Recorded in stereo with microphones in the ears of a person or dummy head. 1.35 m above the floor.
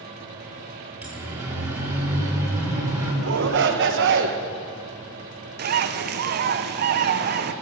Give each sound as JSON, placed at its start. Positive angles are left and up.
{"t": 1.0, "sound": "a siren", "side_deg": -10, "distance_m": 3.5}
{"t": 3.2, "sound": "a shout", "side_deg": -60, "distance_m": 1.2}
{"t": 5.6, "sound": "a bird", "side_deg": -45, "distance_m": 0.8}